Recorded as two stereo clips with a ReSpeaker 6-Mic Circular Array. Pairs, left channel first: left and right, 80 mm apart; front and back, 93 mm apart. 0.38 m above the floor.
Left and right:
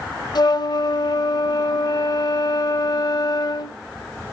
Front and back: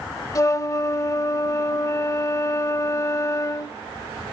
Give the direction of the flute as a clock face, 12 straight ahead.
10 o'clock.